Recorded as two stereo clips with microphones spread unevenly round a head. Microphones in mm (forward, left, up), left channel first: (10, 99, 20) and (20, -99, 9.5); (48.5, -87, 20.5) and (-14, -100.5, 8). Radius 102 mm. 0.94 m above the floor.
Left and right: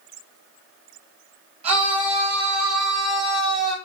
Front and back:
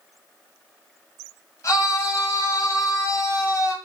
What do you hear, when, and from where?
1.6 s a scream: 25° right, 8 m